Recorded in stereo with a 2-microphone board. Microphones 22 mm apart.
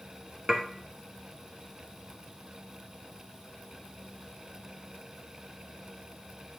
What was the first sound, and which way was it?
Dishes clattering, 30° right (ahead or behind).